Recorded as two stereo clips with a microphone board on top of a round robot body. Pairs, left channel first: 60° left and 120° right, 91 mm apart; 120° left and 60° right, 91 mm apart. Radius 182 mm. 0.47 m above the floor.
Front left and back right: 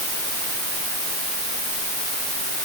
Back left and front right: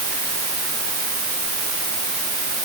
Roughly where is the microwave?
I don't hear a microwave.